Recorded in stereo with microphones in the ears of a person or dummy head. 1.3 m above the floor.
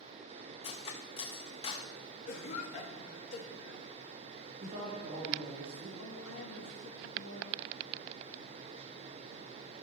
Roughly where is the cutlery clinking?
Left.